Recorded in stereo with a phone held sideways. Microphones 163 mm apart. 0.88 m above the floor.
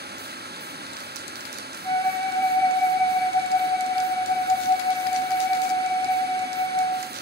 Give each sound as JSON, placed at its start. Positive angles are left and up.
{"t": 0.0, "sound": "running water", "side_deg": -80, "distance_m": 0.9}
{"t": 1.8, "sound": "a flute", "side_deg": 25, "distance_m": 3.0}